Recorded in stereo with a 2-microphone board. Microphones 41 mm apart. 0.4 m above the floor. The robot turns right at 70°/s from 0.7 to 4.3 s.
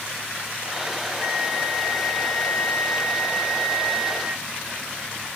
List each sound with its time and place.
1.2 s a flute: 60° right, 4 m; by 4.4 s 155° left, 4 m